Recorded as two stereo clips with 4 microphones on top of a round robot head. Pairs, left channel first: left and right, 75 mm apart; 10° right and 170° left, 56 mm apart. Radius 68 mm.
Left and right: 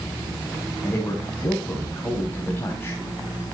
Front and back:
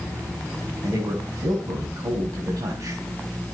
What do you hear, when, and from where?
0.8 s a man speaking: 155° left, 4 m